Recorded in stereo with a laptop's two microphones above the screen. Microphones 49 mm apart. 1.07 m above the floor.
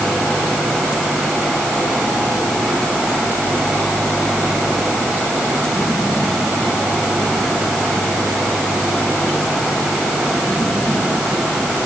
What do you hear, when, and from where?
Only background noise.